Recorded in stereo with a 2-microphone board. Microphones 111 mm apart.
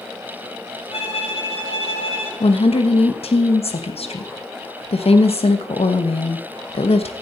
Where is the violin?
75° left (ahead or behind), 2.5 m.